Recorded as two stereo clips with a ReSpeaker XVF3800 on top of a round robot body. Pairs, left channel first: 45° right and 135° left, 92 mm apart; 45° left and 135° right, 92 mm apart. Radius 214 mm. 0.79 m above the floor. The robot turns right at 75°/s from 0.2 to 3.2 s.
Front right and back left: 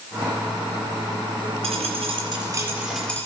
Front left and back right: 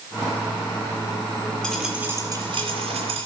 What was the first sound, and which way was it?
A dropped coin, 130° left.